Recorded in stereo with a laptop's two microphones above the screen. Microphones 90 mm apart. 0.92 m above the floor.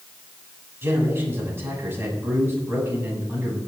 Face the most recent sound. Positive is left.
turn(degrees=-25)  # may be behind; listen again after turning